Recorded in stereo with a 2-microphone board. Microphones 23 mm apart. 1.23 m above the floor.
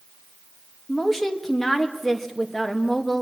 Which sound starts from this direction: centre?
A woman speaking, at 0.9 s.